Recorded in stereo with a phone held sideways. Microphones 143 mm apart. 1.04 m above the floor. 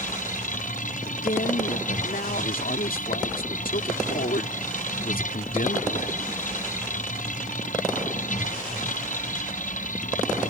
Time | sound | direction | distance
0.0 | a machine running | 65° left (ahead or behind) | ?
1.1 | a man speaking | 85° left | ?